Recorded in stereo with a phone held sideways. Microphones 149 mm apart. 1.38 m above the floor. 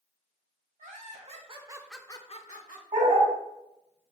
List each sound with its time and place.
0.8 s laughter: 55° right (ahead or behind), 1.4 m; by 2.8 s 70° left (ahead or behind), 1.0 m
2.9 s a dog barking: 60° right (ahead or behind), 2 m